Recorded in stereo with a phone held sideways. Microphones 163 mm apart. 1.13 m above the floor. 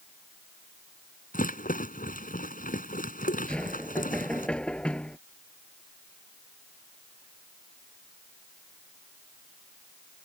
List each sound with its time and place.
1.3 s a rattle: 55° left (ahead or behind)
3.5 s knocking: 5° left (ahead or behind)